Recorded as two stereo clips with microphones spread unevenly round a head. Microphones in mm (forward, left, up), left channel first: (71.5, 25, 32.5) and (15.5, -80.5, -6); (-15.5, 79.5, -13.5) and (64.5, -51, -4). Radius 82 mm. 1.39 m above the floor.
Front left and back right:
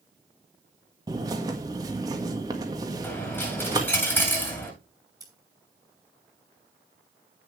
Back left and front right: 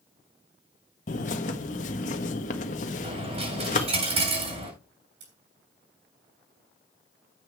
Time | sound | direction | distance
1.1 | a bird | 170° left | 1.5 m
3.0 | a dropped coin | 10° right | 8.5 m
5.2 | scissors | 55° right | 6 m